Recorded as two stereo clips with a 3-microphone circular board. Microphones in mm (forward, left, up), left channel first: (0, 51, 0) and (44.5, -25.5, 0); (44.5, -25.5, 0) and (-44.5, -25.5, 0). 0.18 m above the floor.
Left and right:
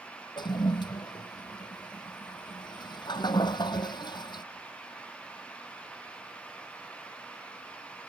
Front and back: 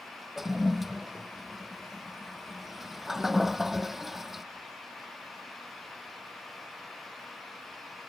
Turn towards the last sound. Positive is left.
turn(degrees=95)